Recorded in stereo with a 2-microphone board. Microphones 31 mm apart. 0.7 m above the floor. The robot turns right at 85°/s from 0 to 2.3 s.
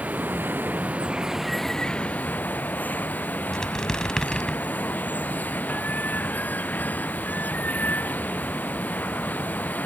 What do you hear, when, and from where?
0.0 s running water: 125° right; by 9.9 s 70° left
3.5 s a squeak: 25° left (ahead or behind)